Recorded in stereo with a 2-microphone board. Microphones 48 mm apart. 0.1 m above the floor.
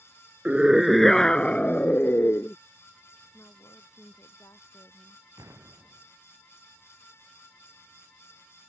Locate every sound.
0.5 s a scream: 20° right (ahead or behind); by 2.6 s 50° left (ahead or behind)
3.3 s a woman speaking: 70° left (ahead or behind)
5.4 s an explosion: 70° right (ahead or behind)